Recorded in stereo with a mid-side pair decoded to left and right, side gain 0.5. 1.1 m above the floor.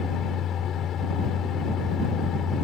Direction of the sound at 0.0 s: 55° left.